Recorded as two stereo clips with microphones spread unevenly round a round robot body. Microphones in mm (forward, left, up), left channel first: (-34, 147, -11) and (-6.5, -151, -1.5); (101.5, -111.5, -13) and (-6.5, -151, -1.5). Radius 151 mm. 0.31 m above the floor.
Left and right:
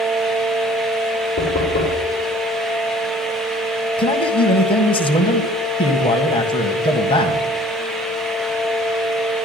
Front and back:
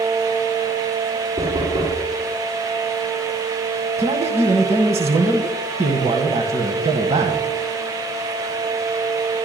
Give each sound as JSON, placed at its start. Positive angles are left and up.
{"t": 1.4, "sound": "knocking", "azimuth_deg": 150, "distance_m": 6.0}
{"t": 4.0, "sound": "a man speaking", "azimuth_deg": 165, "distance_m": 1.4}